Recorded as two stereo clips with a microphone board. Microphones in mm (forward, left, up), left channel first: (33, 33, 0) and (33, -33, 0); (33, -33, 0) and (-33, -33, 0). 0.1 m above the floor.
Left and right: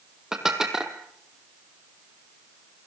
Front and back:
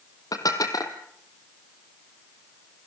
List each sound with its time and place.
0.3 s dishes clattering: 10° right, 2.5 m